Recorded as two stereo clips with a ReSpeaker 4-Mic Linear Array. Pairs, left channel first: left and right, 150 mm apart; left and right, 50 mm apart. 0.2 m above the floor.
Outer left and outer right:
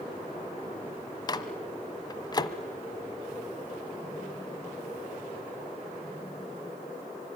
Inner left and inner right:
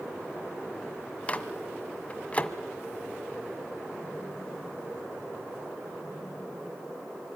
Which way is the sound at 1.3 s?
25° left (ahead or behind).